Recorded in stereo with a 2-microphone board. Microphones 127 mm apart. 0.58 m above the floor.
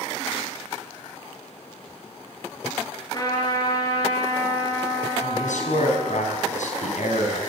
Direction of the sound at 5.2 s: 75° left (ahead or behind).